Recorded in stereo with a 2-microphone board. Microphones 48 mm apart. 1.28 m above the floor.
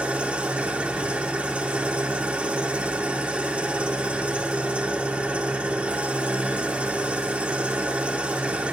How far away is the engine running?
About 3.5 m.